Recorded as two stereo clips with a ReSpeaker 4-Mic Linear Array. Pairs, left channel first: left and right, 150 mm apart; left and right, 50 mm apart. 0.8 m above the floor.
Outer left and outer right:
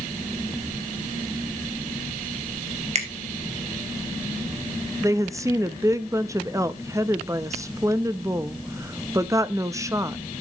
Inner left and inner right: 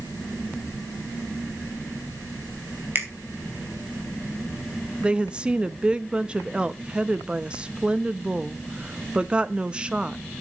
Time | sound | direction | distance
3.0 | a finger snap | 50° right (ahead or behind) | 3 m
5.0 | a woman speaking | 20° right (ahead or behind) | 0.8 m